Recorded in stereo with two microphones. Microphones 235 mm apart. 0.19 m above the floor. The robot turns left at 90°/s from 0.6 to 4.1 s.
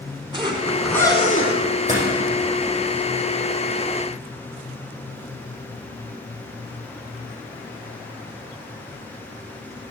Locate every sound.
0.3 s a zipper: 155° right, 1.9 m; by 1.6 s 115° left, 1.9 m
1.9 s a door slam: 35° right (ahead or behind), 5.5 m; by 2.0 s 20° right (ahead or behind), 5.5 m